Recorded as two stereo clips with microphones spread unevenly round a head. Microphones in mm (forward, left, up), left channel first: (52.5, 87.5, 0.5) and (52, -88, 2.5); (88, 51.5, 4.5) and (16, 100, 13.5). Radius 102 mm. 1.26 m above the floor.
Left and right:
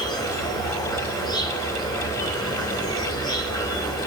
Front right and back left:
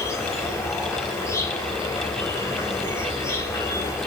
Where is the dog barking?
I don't hear a dog barking.